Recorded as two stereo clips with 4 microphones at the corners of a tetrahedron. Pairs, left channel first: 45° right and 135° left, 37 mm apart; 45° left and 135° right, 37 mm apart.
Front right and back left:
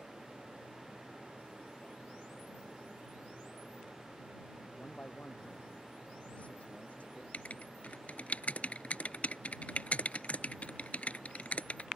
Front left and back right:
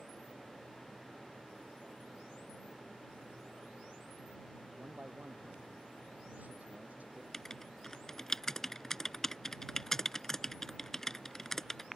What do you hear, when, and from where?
4.8 s a man speaking: 95° right
7.3 s writing: 25° right